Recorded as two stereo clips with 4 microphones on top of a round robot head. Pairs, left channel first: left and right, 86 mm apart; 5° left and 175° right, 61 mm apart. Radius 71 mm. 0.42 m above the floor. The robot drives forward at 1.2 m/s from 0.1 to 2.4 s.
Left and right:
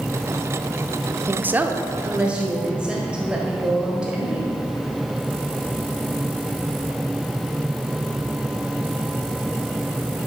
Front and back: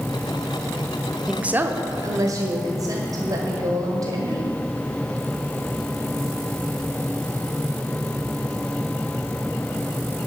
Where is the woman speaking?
95° right, 0.7 m; by 4.5 s 170° right, 1.6 m.